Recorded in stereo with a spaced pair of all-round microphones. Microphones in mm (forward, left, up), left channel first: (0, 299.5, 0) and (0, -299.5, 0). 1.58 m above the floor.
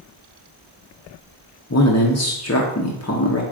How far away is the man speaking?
About 0.5 m.